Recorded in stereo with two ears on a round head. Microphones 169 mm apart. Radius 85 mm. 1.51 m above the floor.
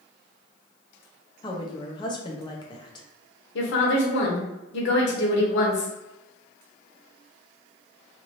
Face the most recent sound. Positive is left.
turn(degrees=70)  # may be behind; listen again after turning